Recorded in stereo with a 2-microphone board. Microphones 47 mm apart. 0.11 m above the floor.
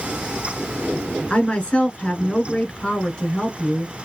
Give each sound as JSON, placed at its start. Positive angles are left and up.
{"t": 1.3, "sound": "a woman speaking", "side_deg": 20, "distance_m": 1.5}